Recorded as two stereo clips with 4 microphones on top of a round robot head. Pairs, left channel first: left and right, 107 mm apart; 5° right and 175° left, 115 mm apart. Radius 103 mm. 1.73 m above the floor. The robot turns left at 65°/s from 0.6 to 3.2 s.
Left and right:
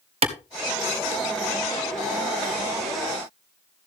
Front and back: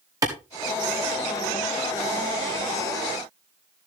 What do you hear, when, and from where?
0.2 s a clap: 115° right, 1.5 m